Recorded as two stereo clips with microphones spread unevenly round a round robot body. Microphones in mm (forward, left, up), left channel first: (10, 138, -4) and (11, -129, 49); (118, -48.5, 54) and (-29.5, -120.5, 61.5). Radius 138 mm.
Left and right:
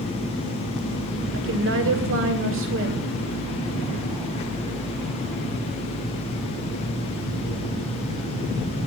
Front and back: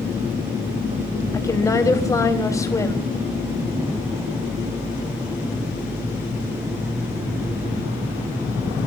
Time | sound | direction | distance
1.3 | a woman speaking | 45° right | 4 m